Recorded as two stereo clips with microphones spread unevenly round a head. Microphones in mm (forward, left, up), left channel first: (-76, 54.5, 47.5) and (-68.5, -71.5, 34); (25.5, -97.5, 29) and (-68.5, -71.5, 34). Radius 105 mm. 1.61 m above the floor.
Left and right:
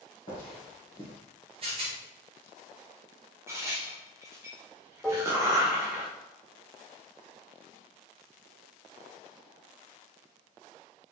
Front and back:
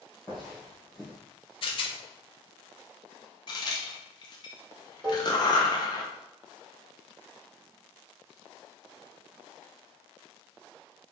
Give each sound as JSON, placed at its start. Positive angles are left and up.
{"t": 0.3, "sound": "footsteps", "azimuth_deg": 70, "distance_m": 1.8}
{"t": 1.6, "sound": "a rattle", "azimuth_deg": -25, "distance_m": 0.6}
{"t": 3.5, "sound": "a crack", "azimuth_deg": -10, "distance_m": 0.5}
{"t": 5.0, "sound": "dishes clattering", "azimuth_deg": 160, "distance_m": 0.8}